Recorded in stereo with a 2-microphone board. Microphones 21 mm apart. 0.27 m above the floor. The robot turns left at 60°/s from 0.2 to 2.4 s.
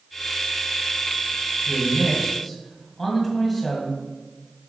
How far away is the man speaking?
About 2.0 m.